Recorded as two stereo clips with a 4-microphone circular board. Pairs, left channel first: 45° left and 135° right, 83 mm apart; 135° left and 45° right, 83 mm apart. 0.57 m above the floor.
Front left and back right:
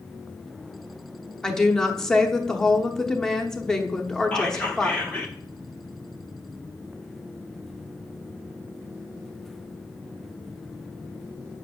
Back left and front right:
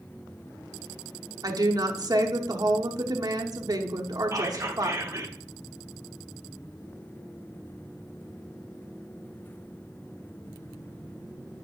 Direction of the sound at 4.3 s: 25° right.